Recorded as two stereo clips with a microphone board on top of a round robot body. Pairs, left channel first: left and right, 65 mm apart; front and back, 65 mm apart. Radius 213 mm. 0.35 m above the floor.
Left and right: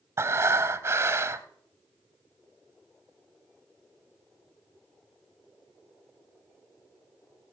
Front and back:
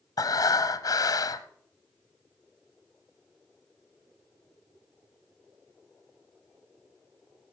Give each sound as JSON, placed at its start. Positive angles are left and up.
{"t": 0.2, "sound": "breathing", "azimuth_deg": -35, "distance_m": 0.6}